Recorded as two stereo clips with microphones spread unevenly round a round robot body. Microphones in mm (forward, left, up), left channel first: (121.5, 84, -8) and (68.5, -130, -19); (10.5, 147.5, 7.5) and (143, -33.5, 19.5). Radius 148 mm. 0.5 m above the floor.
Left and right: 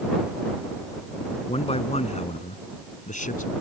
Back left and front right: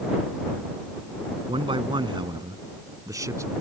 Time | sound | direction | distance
1.5 | a man speaking | 15° left | ?